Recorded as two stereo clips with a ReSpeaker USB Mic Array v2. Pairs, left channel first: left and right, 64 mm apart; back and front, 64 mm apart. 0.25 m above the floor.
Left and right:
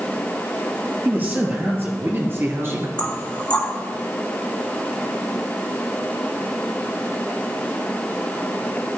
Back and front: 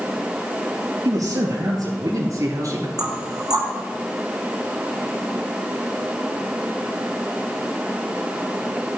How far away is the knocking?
About 3 m.